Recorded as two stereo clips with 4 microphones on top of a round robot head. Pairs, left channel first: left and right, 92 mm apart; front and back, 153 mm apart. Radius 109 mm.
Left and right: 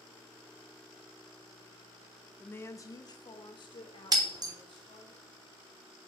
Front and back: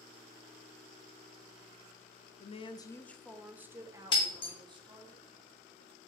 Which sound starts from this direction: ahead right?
Breaking glass, at 4.1 s.